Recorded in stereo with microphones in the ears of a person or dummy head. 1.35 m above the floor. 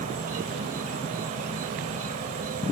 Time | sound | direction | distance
0.0 | an insect | 45° right (ahead or behind) | ?